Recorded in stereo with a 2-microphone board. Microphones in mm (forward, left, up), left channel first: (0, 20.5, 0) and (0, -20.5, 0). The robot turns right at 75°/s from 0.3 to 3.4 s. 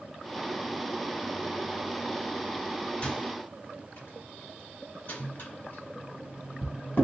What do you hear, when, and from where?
3.0 s a microwave: 25° left (ahead or behind), 1.8 m; by 7.0 s 50° left (ahead or behind), 1.8 m